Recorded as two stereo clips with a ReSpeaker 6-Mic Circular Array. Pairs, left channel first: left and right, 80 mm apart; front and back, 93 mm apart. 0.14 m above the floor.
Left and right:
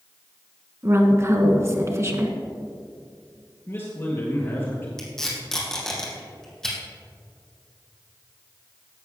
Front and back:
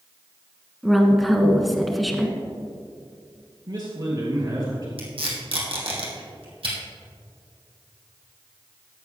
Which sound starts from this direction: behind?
Tape being pulled, at 5.0 s.